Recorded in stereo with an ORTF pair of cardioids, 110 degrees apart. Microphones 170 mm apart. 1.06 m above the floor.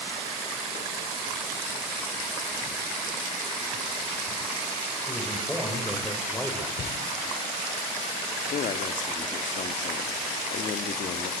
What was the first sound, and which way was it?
A man speaking, straight ahead.